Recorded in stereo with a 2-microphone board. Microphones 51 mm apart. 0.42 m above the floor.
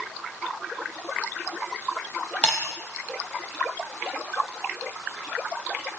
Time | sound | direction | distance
2.4 | breaking glass | 25° left (ahead or behind) | 6.5 m